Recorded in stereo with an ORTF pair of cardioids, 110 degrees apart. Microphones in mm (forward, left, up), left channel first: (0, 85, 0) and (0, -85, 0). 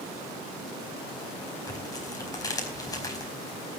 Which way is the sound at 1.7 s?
20° left.